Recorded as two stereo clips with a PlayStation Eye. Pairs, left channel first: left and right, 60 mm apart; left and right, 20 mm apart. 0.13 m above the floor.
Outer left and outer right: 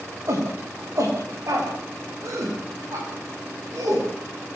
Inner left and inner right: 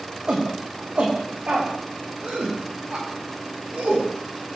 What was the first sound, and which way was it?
A shout, 55° right (ahead or behind).